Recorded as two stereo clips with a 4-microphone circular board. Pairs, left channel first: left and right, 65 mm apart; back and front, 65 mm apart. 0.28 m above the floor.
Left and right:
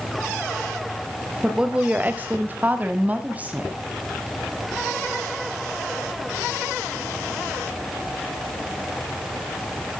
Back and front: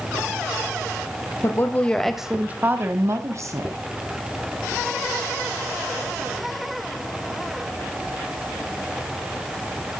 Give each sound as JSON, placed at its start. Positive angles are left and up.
{"t": 1.4, "sound": "a woman speaking", "azimuth_deg": -165, "distance_m": 1.2}